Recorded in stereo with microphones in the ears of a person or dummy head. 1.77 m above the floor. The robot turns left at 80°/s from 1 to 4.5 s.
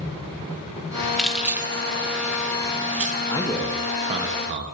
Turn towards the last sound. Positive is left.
turn(degrees=-70)